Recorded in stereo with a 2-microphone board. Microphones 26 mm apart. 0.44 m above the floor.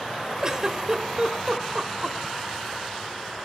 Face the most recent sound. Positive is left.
turn(degrees=-25)  # may be behind; listen again after turning